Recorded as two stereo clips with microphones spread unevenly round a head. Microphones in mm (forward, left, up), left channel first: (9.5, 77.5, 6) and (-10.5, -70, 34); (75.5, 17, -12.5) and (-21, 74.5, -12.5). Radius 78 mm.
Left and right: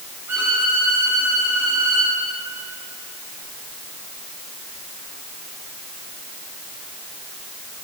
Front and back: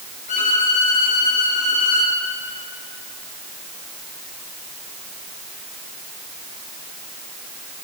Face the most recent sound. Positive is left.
turn(degrees=-20)